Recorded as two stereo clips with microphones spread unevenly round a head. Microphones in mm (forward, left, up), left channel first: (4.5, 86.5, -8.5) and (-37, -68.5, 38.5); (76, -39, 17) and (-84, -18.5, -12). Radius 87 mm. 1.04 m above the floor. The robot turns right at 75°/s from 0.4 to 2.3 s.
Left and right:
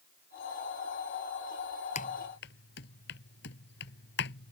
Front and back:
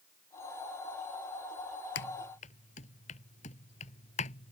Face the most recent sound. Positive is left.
turn(degrees=45)